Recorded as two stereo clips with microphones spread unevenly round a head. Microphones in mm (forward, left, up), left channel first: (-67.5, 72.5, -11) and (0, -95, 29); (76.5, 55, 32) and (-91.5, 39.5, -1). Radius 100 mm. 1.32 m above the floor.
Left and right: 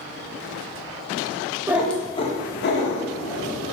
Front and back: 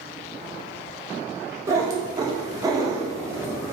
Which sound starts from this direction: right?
A cat meowing, at 1.7 s.